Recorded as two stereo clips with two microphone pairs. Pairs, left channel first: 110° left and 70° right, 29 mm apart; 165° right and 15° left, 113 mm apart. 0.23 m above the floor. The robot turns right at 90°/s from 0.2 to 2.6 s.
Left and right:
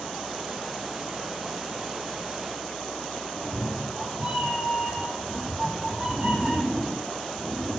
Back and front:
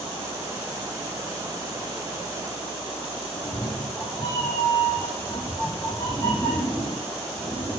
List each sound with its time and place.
3.3 s a cat meowing: 105° right, 4 m